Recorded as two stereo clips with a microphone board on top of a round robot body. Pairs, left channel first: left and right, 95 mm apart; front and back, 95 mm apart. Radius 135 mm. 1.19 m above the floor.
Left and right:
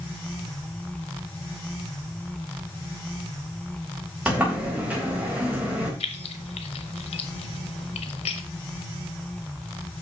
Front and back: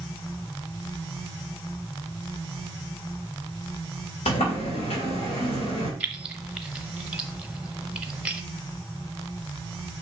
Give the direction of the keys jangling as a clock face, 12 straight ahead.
9 o'clock.